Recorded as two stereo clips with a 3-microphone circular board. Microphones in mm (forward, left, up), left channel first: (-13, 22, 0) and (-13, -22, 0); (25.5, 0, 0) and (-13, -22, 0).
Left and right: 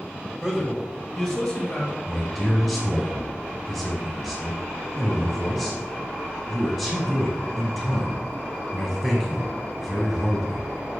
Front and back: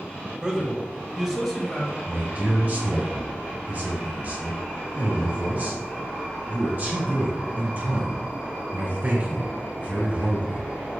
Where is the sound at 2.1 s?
165° right, 1.8 m.